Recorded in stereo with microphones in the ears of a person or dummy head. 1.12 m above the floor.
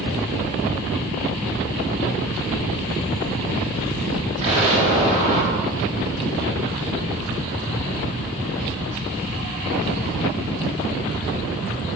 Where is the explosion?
40° right (ahead or behind), 3.5 m.